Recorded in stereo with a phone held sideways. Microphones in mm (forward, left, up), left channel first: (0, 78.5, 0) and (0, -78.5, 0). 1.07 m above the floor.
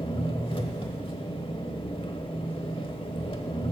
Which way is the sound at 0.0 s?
35° left (ahead or behind).